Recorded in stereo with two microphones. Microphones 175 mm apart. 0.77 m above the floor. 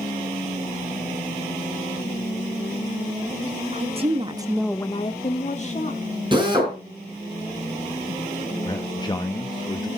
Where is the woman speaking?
40° right (ahead or behind), 1.6 m; by 6.1 s 45° left (ahead or behind), 2 m.